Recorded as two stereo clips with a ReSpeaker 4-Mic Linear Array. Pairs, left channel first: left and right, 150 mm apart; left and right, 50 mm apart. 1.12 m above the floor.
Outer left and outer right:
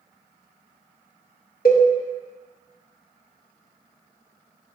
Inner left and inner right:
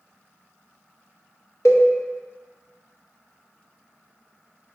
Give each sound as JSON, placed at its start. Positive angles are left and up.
{"t": 1.6, "sound": "a cowbell", "side_deg": 75, "distance_m": 0.7}